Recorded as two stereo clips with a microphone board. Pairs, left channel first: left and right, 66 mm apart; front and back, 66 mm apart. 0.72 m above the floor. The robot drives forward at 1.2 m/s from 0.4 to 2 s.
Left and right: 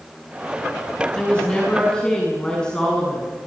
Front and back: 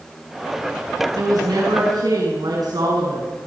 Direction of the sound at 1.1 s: 165° left.